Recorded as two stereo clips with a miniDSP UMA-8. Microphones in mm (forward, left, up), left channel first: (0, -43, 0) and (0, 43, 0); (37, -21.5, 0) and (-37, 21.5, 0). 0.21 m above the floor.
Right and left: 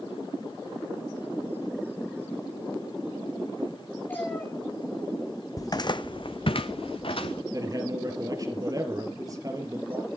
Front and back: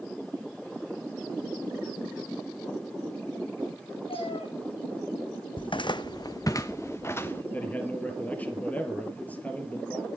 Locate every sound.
4.1 s a cat meowing: 20° right, 4.5 m
5.6 s footsteps: 40° right, 0.6 m; by 7.4 s 95° right, 1.5 m
7.5 s a man speaking: 45° left, 3.5 m